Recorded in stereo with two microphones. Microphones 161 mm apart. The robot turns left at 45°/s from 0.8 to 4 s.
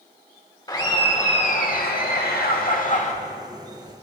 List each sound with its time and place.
0.7 s laughter: 155° left, 1.3 m; by 3.1 s 50° left, 1.3 m